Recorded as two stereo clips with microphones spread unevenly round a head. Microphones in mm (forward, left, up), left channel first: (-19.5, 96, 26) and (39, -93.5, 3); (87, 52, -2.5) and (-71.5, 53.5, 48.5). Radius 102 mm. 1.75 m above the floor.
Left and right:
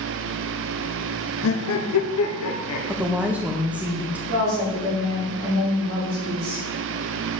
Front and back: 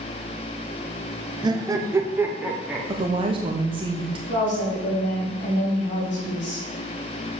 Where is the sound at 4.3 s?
25° right, 3.5 m.